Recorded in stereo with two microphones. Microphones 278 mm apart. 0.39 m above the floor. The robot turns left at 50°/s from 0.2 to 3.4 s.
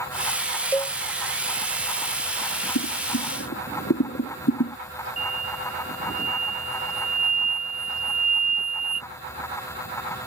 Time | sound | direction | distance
0.7 | a cowbell | 5° left (ahead or behind) | ?
2.8 | boiling | 80° left | ?
5.2 | an explosion | 65° left (ahead or behind) | ?